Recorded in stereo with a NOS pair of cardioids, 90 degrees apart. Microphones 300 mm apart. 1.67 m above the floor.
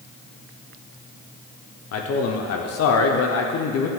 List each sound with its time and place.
1.9 s a man speaking: 55° left, 0.8 m